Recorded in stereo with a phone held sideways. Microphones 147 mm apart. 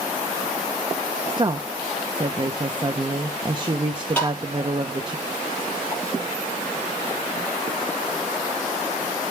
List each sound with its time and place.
1.3 s a woman speaking: 30° right (ahead or behind), 0.9 m
4.2 s tapping: 10° left (ahead or behind), 8.5 m